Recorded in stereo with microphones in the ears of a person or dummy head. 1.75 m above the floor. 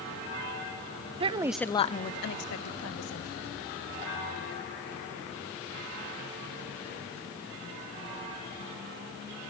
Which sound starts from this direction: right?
A woman speaking, at 1.2 s.